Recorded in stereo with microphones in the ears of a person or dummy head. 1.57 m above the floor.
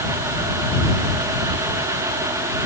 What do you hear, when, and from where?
Only background noise.